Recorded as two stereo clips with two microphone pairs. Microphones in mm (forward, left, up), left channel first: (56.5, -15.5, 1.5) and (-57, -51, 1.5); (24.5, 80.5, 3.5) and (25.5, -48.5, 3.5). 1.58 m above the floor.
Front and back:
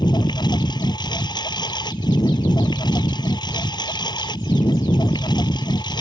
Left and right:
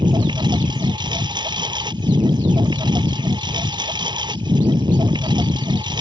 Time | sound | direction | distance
0.0 | a lawn mower | 35° right | ?